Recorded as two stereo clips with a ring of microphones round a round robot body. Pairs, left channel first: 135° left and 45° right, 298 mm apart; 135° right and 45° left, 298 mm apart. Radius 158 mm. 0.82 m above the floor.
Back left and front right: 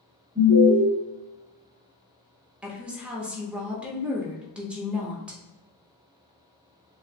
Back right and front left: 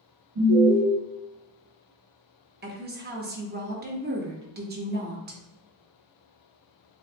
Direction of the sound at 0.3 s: 25° left.